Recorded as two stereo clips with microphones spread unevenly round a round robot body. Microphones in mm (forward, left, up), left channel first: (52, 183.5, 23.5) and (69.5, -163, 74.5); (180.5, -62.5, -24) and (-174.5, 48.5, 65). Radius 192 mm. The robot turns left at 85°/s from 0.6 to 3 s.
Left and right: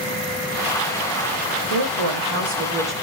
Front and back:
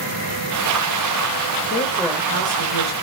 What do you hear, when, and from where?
1.7 s a woman speaking: 75° right, 3.5 m; by 2.9 s straight behind, 3.5 m